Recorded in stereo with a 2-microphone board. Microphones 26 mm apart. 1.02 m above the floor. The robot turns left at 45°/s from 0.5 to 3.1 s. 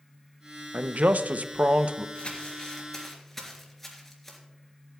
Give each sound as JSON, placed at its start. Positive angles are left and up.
{"t": 0.7, "sound": "a man speaking", "azimuth_deg": -75, "distance_m": 0.6}
{"t": 2.1, "sound": "crumpling", "side_deg": 50, "distance_m": 3.0}